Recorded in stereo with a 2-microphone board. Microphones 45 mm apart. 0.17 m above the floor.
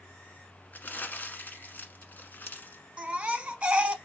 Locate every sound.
0.7 s crumpling: 45° left (ahead or behind), 1.3 m
3.0 s a baby crying: 25° right (ahead or behind), 0.8 m